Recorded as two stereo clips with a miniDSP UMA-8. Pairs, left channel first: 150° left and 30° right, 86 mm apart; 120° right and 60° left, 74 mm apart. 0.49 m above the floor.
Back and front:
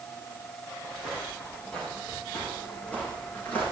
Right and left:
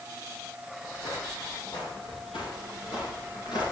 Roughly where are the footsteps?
Behind right.